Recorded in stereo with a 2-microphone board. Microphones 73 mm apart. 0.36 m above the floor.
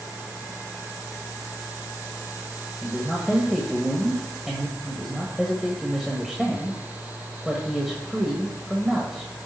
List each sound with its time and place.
2.8 s a man speaking: 5° right (ahead or behind), 1.3 m